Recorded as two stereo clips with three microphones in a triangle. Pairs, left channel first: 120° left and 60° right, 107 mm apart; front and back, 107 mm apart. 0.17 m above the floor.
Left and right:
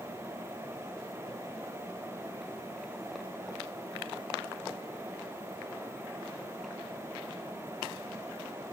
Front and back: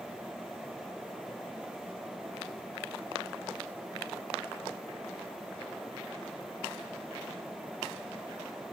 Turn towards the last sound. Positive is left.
No sound to turn to.